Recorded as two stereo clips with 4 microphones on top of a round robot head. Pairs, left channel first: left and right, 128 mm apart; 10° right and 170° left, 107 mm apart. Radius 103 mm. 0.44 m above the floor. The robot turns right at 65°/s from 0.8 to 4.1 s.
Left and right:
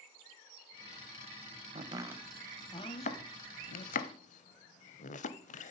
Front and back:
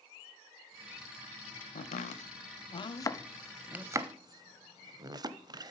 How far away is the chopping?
About 0.6 m.